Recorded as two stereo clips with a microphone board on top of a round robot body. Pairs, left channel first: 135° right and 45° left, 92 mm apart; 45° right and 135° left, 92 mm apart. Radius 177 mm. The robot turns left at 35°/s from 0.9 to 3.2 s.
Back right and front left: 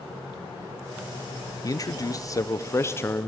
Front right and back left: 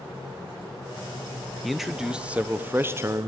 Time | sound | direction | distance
1.6 | a man speaking | 135° right | 0.9 m